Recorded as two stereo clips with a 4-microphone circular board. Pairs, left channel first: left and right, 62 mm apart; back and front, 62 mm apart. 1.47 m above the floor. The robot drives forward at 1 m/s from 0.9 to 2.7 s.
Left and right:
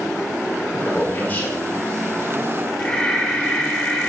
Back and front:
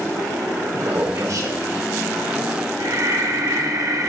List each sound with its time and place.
0.7 s a man speaking: 25° left, 5 m; by 1.6 s 30° left, 4 m
2.8 s breathing: 15° left, 2 m